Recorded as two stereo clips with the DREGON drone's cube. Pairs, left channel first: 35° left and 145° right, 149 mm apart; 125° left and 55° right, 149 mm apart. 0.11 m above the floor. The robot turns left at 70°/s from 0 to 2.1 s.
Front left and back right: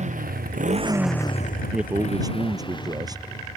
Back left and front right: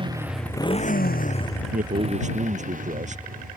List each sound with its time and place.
0.0 s a motorcycle: 110° right; by 3.6 s 35° right
1.7 s a man speaking: 60° right; by 3.2 s 85° right